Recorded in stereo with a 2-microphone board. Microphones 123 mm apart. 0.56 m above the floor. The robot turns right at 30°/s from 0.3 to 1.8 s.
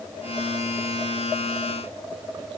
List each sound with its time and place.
Only background noise.